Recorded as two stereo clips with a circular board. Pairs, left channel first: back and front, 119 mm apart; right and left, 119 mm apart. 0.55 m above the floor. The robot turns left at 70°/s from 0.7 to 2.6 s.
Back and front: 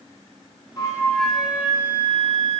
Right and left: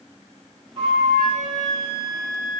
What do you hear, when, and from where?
0.8 s a flute: 130° left, 1.4 m; by 2.6 s straight ahead, 1.4 m